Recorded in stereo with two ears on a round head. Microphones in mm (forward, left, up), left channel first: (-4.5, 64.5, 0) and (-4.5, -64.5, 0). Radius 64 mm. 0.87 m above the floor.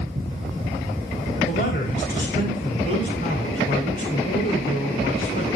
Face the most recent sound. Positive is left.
turn(degrees=65)  # may be behind; listen again after turning